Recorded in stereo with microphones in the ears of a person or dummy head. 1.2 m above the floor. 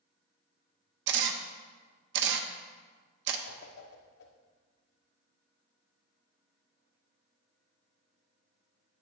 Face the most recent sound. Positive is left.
turn(degrees=60)  # may be behind; listen again after turning